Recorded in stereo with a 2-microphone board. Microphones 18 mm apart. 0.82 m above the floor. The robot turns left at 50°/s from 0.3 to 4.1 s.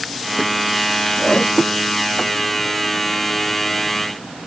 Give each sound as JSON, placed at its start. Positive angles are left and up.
{"t": 1.2, "sound": "a whoosh", "side_deg": 45}